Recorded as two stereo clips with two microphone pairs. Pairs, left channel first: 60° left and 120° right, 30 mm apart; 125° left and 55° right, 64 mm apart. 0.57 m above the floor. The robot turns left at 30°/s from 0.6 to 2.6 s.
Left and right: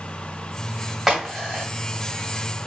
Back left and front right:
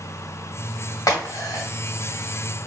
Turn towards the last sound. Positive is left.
turn(degrees=100)